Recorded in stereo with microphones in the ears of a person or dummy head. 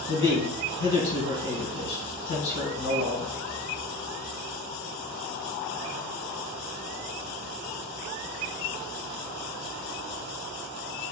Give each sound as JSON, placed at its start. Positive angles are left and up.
{"t": 0.1, "sound": "a man speaking", "side_deg": 60, "distance_m": 1.6}